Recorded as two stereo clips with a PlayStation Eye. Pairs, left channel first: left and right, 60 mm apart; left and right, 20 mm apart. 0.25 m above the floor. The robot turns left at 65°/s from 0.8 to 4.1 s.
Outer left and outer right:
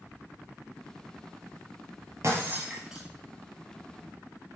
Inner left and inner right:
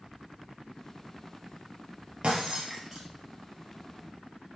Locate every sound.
2.2 s breaking glass: 55° right (ahead or behind), 1.9 m; by 3.1 s centre (ahead or behind), 1.9 m